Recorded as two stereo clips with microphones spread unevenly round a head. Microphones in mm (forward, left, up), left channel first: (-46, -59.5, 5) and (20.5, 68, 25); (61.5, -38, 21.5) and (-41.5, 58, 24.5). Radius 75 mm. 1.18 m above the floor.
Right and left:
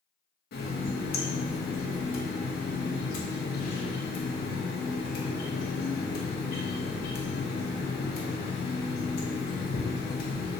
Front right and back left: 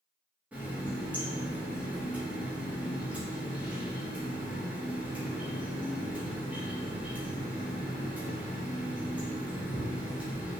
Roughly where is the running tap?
Behind right.